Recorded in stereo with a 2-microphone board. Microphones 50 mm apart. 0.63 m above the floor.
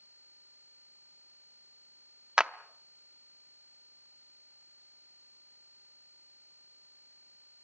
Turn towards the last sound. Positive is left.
turn(degrees=-20)  # may be behind; listen again after turning